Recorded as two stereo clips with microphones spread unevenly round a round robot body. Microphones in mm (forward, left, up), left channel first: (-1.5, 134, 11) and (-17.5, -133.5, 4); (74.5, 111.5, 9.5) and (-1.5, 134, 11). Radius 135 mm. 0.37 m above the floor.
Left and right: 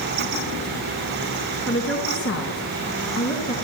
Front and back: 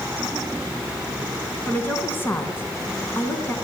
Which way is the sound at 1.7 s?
45° left.